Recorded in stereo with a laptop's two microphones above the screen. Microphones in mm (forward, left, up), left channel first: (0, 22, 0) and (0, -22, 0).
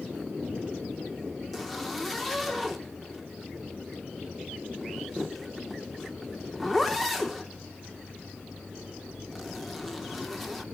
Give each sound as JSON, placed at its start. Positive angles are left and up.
{"t": 1.5, "sound": "a zipper", "side_deg": 5, "distance_m": 1.1}